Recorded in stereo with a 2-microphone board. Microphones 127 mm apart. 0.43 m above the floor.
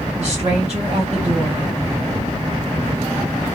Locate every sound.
0.2 s a woman speaking: 50° right (ahead or behind), 1.6 m